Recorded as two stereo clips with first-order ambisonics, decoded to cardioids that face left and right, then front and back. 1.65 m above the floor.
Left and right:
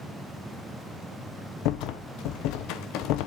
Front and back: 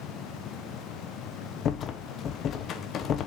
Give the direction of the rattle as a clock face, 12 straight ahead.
10 o'clock.